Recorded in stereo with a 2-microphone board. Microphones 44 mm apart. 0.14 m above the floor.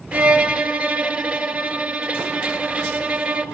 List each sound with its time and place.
0.1 s a violin: 35° right (ahead or behind), 1.6 m